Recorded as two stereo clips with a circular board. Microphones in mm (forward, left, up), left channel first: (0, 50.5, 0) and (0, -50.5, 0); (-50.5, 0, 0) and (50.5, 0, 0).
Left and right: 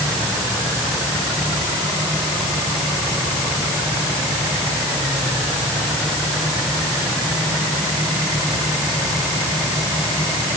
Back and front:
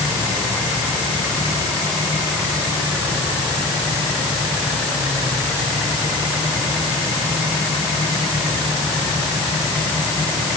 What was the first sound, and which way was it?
Only background noise.